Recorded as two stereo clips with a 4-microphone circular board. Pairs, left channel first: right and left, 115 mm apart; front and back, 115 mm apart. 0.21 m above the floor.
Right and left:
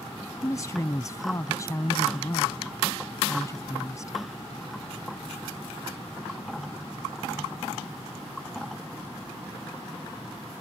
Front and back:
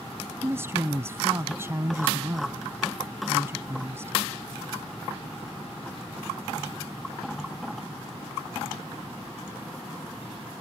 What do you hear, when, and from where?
0.4 s a woman speaking: 130° right